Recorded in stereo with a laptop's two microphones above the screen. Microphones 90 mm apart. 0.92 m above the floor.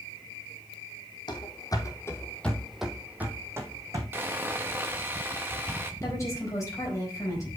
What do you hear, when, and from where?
1.3 s running footsteps: 55° left (ahead or behind), 1.9 m; by 4.0 s 35° right (ahead or behind), 2.5 m
4.1 s sawing: 25° right (ahead or behind), 1.1 m
6.0 s a woman speaking: 35° left (ahead or behind), 4.5 m